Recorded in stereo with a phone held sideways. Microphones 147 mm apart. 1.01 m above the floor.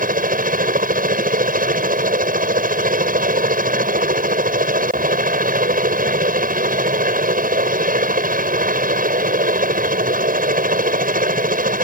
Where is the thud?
No thud in this recording.